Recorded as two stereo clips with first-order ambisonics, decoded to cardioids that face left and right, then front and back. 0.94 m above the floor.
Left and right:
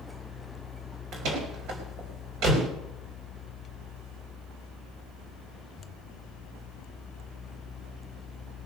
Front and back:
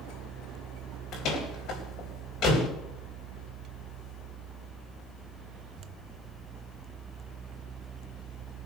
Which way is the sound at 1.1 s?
50° right.